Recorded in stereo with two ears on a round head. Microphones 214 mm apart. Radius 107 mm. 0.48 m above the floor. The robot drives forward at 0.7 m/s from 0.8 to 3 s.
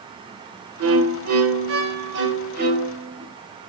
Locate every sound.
0.8 s a violin: 65° right (ahead or behind), 1.2 m; by 3.3 s 40° right (ahead or behind), 1.8 m